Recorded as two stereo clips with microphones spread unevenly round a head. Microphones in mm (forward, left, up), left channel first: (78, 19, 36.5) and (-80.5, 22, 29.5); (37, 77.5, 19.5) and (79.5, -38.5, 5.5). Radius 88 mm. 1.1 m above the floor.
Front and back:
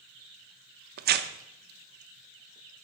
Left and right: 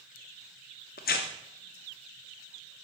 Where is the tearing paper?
150° left, 0.5 m.